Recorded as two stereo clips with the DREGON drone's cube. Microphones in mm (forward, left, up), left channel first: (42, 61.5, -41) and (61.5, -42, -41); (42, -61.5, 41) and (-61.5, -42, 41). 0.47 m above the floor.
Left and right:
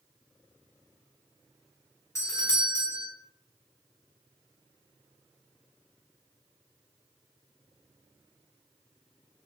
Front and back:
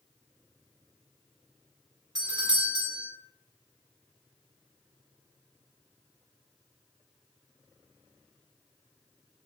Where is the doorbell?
150° left, 1.6 m.